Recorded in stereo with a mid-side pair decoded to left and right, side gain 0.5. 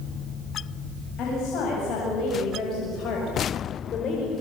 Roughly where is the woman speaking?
Ahead left.